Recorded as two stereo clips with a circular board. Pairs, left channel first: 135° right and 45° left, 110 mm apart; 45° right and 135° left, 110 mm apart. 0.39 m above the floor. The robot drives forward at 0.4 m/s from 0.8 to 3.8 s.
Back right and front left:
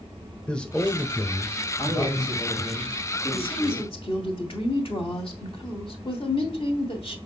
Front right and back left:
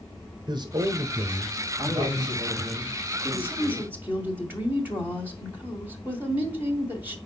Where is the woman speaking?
150° right, 1.8 m; by 7.2 s 155° right, 1.9 m.